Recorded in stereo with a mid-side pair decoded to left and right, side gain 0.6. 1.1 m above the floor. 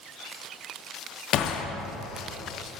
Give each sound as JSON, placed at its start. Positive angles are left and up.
{"t": 1.3, "sound": "a gunshot", "azimuth_deg": 55, "distance_m": 0.5}